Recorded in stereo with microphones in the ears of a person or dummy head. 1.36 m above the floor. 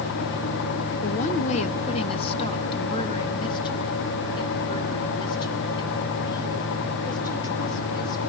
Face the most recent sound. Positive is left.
turn(degrees=25)  # may be behind; listen again after turning